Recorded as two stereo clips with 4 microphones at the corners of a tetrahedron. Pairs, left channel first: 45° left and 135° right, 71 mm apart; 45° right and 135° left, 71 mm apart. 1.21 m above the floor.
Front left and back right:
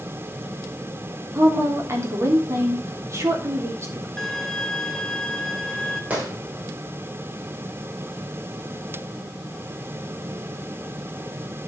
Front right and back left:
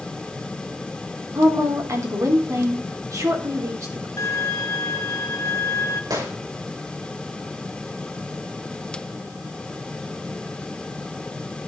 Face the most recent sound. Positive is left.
turn(degrees=160)